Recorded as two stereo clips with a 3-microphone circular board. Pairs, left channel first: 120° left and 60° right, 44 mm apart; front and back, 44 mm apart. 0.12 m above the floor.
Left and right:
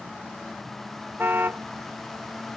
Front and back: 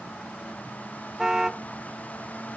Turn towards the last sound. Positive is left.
turn(degrees=-100)